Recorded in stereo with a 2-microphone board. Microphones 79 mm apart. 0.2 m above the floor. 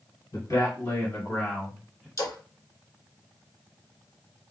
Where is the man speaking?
50° left (ahead or behind), 2 m; by 2.1 s 5° right (ahead or behind), 1.6 m.